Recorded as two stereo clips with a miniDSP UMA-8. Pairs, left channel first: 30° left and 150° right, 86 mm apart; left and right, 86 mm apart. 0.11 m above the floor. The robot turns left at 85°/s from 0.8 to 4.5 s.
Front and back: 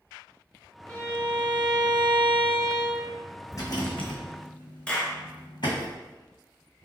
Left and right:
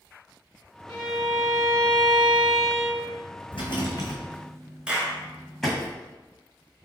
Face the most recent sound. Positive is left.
turn(degrees=-30)